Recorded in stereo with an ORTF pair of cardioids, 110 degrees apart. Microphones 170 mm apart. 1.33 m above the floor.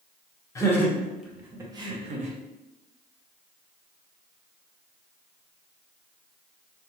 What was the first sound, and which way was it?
Laughter, 20° left.